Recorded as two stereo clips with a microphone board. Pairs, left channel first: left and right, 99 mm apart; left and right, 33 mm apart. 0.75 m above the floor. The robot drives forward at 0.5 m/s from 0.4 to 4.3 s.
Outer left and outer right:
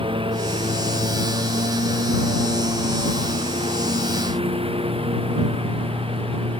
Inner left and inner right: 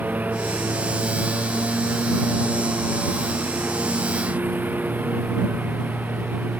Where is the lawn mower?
65° right (ahead or behind); by 6.6 s 70° right (ahead or behind).